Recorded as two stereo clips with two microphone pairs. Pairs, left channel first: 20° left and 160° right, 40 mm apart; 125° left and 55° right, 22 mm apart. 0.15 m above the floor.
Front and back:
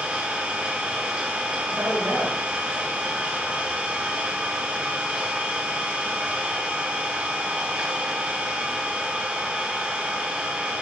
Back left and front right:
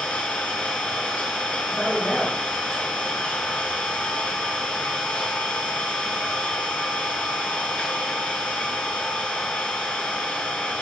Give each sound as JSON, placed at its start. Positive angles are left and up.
{"t": 0.0, "sound": "an engine running", "azimuth_deg": 140, "distance_m": 7.0}
{"t": 1.7, "sound": "a man speaking", "azimuth_deg": -155, "distance_m": 9.5}